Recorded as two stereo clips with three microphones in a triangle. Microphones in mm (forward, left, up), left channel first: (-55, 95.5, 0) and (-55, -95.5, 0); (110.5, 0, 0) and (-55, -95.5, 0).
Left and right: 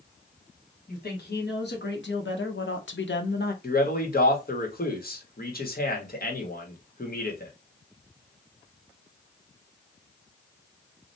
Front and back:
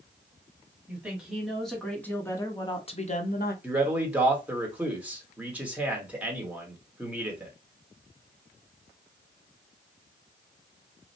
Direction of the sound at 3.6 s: 130° left.